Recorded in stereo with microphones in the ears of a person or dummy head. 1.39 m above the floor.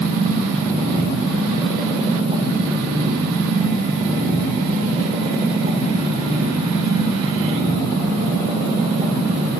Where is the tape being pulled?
No tape being pulled in this recording.